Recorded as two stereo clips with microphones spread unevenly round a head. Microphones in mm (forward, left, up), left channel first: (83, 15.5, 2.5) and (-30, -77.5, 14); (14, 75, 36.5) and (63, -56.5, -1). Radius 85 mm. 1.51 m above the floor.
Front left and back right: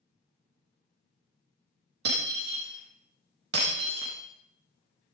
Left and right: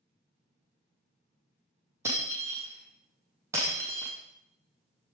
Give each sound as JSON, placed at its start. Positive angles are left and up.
{"t": 2.0, "sound": "breaking glass", "azimuth_deg": -150, "distance_m": 5.5}